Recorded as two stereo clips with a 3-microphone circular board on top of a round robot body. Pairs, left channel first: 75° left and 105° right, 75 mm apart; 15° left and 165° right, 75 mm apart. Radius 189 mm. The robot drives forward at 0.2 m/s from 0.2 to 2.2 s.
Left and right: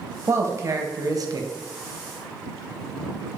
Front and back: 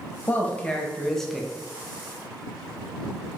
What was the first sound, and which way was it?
A man speaking, 50° right.